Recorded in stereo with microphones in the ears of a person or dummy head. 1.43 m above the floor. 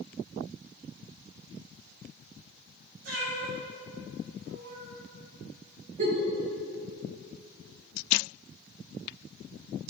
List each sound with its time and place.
3.0 s a cat meowing: 55° right (ahead or behind), 2.5 m
6.0 s a giggle: 40° right (ahead or behind), 1.6 m